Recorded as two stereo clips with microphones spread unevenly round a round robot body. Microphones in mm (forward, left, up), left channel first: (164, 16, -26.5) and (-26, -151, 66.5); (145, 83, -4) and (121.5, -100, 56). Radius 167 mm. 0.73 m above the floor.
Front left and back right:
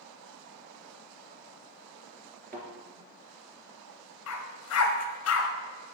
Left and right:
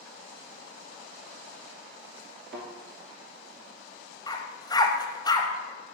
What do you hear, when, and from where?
2.5 s a thud: 90° right, 1.7 m
4.3 s a dog barking: straight ahead, 0.8 m